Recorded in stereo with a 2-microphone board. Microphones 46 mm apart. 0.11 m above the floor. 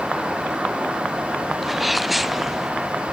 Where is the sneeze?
Centre (ahead or behind).